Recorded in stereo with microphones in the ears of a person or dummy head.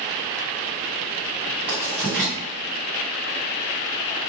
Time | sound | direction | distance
1.7 | writing | 10° right (ahead or behind) | 1.6 m